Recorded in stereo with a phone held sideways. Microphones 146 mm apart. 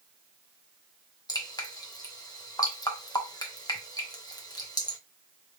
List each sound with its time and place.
1.3 s dripping: 25° left (ahead or behind), 1.1 m